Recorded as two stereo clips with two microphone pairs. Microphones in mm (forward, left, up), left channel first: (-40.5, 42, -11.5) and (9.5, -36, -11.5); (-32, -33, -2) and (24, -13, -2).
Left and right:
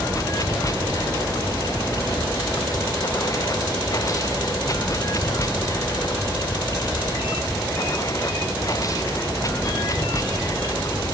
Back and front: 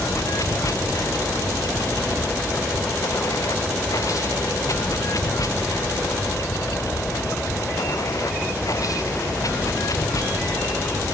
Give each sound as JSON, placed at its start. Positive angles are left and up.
{"t": 0.0, "sound": "running water", "azimuth_deg": 175}